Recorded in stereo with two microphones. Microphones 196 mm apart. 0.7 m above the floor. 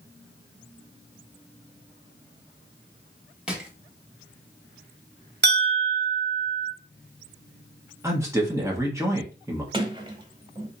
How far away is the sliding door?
About 0.8 m.